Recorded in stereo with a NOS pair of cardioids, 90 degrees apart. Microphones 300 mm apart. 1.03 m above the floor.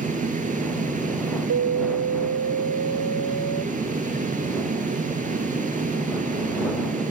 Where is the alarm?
65° right.